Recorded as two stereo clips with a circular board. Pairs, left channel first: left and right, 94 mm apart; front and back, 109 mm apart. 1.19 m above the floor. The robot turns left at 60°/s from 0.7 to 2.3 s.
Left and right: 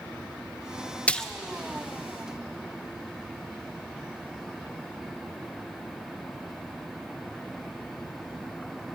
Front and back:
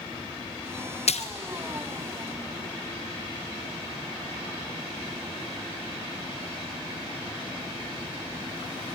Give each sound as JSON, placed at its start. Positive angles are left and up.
{"t": 1.1, "sound": "a splash", "azimuth_deg": 15, "distance_m": 0.7}